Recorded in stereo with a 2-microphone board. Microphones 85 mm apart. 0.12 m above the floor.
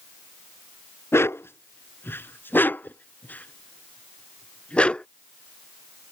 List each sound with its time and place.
1.1 s a dog barking: 30° left (ahead or behind); by 5.1 s 10° left (ahead or behind)